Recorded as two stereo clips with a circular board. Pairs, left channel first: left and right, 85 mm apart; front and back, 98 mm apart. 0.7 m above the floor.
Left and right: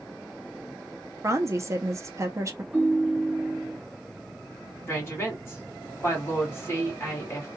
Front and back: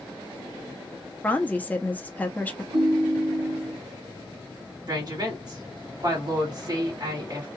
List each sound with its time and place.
1.2 s a woman speaking: 65° right, 0.6 m
2.7 s a ringtone: 165° right, 1.3 m
4.9 s a woman speaking: 145° left, 1.7 m